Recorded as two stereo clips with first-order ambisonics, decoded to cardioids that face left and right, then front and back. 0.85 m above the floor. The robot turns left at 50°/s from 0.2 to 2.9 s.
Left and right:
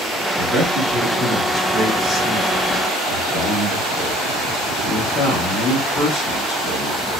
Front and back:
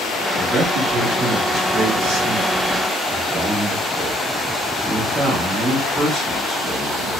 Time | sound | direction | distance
0.4 | a man speaking | 140° right | 1.1 m